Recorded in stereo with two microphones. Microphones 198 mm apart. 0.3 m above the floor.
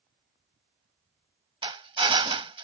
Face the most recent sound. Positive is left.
turn(degrees=-30)  # may be behind; listen again after turning